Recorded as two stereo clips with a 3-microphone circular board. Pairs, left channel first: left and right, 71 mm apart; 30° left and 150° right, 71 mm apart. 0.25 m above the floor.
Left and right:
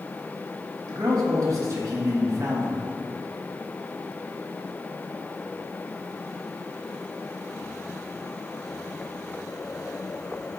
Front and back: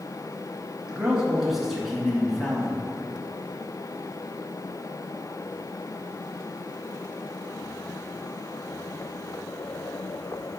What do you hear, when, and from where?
0.9 s a man speaking: 75° right, 2.5 m; by 2.9 s 50° right, 2.5 m